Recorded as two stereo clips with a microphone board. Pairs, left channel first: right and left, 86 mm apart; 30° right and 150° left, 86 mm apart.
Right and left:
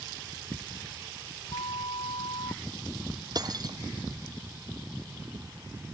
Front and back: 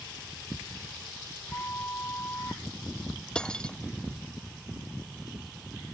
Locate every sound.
1.5 s a flute: 95° right
3.4 s cutlery clinking: 50° left